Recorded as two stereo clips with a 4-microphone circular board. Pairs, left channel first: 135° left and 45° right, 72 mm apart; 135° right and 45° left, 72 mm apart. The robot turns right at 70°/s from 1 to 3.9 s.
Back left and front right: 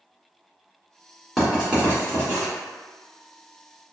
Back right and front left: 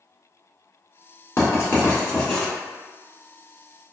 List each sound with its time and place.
1.4 s writing: 135° right, 1.2 m; by 2.5 s 55° right, 1.2 m